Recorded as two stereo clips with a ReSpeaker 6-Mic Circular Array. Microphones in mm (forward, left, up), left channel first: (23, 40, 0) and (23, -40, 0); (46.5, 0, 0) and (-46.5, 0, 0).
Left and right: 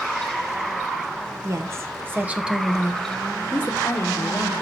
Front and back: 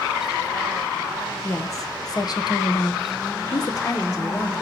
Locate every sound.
1.4 s a woman speaking: 50° right, 1.1 m; by 4.5 s 50° left, 1.3 m